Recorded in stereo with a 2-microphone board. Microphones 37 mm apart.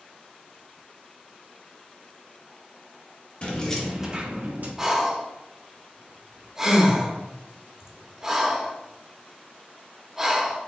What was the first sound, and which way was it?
Keys jangling, 30° left (ahead or behind).